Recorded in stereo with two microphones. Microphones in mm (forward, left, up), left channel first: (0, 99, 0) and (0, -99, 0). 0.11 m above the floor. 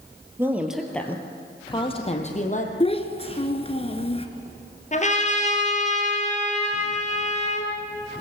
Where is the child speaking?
30° left (ahead or behind), 1.2 m.